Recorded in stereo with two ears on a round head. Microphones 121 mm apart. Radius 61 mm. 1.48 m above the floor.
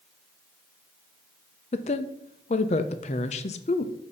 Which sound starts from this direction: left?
A woman speaking, at 1.7 s.